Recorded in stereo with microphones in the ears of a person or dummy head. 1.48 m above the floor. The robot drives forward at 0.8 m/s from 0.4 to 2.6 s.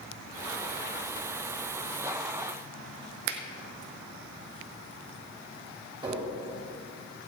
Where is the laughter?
No laughter in this recording.